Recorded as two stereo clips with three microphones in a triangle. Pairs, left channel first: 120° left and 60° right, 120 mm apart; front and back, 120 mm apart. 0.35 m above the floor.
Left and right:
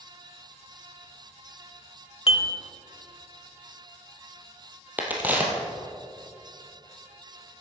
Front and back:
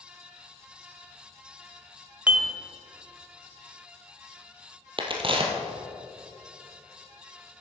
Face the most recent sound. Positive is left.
turn(degrees=-135)